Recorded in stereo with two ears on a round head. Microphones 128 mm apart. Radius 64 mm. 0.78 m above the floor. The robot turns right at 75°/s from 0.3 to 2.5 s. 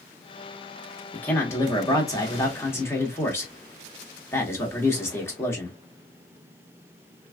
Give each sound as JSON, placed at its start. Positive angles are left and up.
{"t": 1.1, "sound": "a man speaking", "side_deg": 10, "distance_m": 1.0}